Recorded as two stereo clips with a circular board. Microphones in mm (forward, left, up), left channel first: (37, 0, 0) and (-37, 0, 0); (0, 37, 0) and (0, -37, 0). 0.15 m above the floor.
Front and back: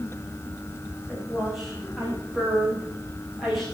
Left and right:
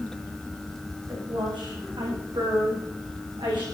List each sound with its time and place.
1.1 s a woman speaking: 95° right, 9.5 m; by 3.6 s 90° right, 11.5 m